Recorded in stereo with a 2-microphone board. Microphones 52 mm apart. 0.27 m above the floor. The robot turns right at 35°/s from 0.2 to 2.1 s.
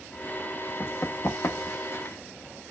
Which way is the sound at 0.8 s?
40° left (ahead or behind).